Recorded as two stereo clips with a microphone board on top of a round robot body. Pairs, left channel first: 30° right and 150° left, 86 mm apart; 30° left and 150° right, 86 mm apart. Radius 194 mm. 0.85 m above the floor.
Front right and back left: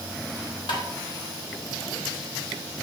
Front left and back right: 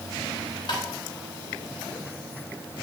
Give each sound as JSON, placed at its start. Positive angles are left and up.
{"t": 0.7, "sound": "tapping", "azimuth_deg": 0, "distance_m": 2.5}